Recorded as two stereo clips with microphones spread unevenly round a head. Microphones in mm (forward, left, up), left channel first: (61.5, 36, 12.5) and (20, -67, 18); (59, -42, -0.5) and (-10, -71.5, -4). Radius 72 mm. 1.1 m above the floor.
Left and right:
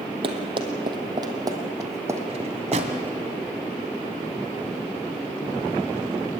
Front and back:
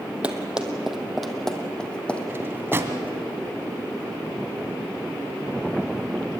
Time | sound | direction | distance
0.2 | running footsteps | 80° right | 2.5 m
2.3 | a drawer | 95° right | 2.5 m